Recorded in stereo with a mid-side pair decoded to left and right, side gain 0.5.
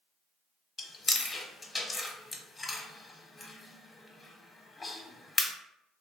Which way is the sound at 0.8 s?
30° left.